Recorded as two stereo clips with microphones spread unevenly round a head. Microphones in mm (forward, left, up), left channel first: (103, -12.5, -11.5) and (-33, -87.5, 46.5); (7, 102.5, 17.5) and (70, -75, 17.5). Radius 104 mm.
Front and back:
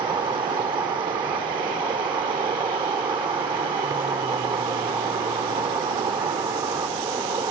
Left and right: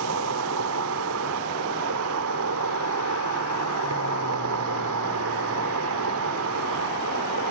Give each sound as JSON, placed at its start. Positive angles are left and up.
{"t": 0.0, "sound": "an insect", "azimuth_deg": -85}